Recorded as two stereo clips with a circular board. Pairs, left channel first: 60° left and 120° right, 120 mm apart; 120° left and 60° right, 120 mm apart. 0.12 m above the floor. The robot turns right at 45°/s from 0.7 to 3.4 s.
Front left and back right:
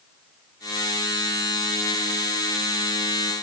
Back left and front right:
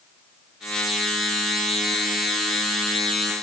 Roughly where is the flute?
No flute in this recording.